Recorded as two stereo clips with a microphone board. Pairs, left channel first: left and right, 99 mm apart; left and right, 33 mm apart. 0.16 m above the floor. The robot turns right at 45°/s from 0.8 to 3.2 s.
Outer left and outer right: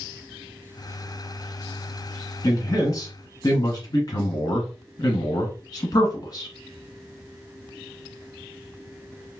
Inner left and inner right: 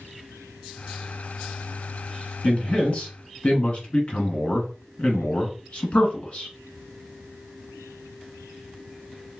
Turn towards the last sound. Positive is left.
turn(degrees=85)